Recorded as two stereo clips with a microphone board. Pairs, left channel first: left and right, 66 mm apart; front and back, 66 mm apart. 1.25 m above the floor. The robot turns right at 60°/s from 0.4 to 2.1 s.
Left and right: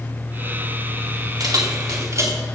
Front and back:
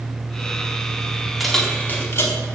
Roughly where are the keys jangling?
Right.